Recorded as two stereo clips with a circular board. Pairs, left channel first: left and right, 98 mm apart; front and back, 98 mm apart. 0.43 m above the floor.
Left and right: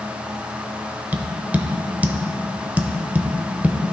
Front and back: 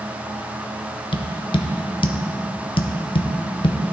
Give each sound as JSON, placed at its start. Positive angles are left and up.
{"t": 1.1, "sound": "tapping", "azimuth_deg": -20, "distance_m": 0.5}